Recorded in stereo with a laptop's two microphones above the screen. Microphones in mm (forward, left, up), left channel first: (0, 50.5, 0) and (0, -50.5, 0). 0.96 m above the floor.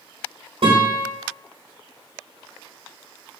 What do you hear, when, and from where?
0.6 s a guitar: 65° right (ahead or behind), 1.2 m